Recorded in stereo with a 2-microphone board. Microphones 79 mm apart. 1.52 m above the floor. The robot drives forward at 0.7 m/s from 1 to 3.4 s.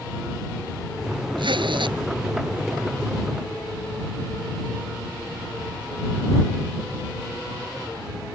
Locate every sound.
1.4 s a zipper: 85° right; by 2.0 s 80° right